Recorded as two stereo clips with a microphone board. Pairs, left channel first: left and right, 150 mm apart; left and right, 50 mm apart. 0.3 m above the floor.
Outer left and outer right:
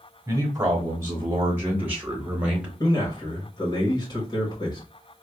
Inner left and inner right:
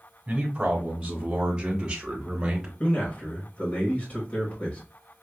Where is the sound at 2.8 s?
30° left (ahead or behind), 1.2 m.